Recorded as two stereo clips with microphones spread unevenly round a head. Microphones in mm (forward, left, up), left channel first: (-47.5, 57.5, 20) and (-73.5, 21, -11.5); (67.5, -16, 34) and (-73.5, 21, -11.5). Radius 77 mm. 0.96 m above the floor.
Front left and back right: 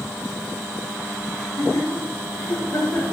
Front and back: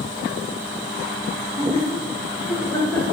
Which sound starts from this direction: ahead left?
Laughter, at 1.3 s.